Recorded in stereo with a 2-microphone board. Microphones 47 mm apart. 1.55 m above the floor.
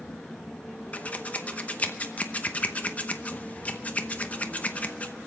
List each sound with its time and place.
0.9 s scissors: 30° left (ahead or behind), 0.8 m